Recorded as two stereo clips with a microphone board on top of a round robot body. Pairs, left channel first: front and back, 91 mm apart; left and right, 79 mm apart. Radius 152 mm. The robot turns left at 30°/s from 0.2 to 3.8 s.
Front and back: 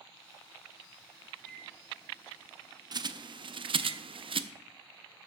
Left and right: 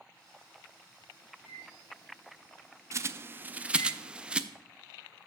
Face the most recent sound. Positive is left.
turn(degrees=-170)